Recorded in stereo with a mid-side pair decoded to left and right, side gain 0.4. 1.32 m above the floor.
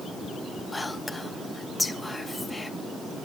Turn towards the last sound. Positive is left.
turn(degrees=20)